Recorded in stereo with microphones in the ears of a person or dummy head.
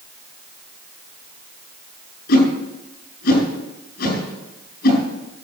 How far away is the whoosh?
About 9 m.